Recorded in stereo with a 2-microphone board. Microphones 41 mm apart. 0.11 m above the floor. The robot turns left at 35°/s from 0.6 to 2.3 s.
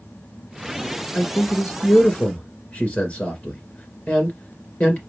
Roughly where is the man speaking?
Left.